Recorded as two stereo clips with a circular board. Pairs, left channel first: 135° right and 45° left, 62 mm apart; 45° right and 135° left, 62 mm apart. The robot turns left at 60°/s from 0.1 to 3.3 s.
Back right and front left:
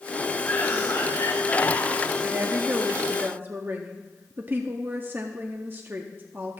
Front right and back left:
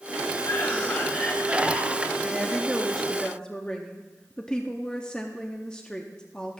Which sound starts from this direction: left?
A woman speaking, at 2.2 s.